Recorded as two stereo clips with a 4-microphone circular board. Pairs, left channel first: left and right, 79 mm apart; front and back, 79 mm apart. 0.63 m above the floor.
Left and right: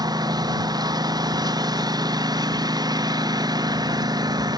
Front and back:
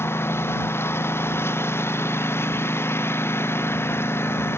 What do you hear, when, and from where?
0.0 s a lawn mower: 60° right